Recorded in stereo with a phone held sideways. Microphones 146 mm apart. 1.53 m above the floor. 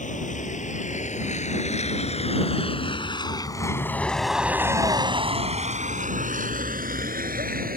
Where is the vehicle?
60° left (ahead or behind); by 7.8 s 80° right.